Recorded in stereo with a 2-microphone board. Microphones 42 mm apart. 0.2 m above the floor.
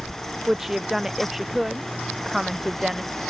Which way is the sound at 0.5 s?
5° right (ahead or behind).